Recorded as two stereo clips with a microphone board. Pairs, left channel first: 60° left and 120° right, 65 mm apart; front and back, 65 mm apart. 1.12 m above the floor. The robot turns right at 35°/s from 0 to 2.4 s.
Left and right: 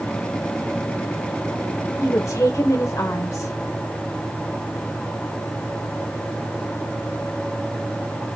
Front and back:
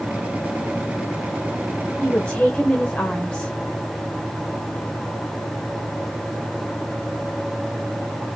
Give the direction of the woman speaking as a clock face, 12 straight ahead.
10 o'clock.